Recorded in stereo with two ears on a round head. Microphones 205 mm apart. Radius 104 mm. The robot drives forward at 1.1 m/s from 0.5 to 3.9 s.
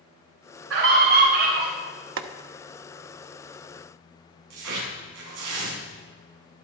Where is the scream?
75° right (ahead or behind), 10 m; by 1.7 s 70° right (ahead or behind), 10 m.